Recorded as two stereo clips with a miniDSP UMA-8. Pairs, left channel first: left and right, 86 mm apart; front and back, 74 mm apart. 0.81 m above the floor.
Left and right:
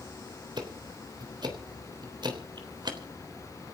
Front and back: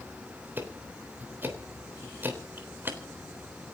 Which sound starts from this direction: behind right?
Ticking, at 0.6 s.